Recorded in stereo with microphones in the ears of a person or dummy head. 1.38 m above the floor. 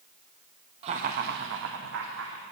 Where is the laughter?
35° right (ahead or behind), 0.5 m; by 2.4 s 80° right, 0.9 m.